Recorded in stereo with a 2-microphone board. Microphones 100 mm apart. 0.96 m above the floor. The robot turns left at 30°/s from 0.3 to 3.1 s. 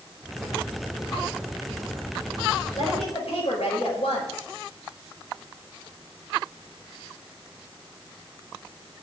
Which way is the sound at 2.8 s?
75° left (ahead or behind).